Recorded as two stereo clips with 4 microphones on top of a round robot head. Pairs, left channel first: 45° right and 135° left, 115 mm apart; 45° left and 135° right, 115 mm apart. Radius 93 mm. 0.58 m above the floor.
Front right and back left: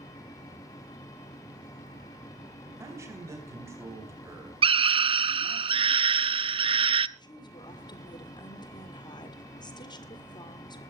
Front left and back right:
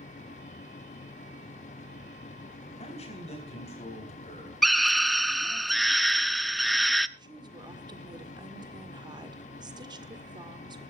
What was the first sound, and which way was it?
A man speaking, 70° left.